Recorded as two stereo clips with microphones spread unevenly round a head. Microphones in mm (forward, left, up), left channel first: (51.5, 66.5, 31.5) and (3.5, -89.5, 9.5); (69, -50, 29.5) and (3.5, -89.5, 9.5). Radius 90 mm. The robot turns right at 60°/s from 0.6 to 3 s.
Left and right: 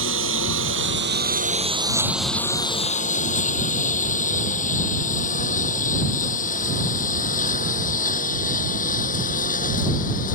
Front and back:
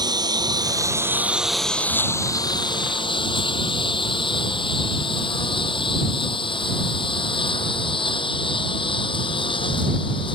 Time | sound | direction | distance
0.0 | a lawn mower | 115° right | ?